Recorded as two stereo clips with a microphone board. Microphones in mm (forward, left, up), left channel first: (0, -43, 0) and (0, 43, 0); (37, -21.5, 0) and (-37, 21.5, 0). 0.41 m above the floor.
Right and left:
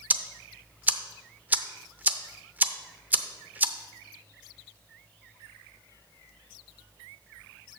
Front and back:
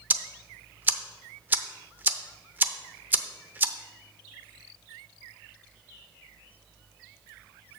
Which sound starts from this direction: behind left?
Ticking, at 0.1 s.